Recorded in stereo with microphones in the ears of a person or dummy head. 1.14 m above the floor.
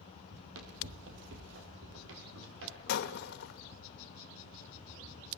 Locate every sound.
0.3 s running footsteps: 75° right (ahead or behind), 5 m; by 3.9 s 70° right (ahead or behind), 8.5 m
2.9 s breaking glass: 60° left (ahead or behind), 1.4 m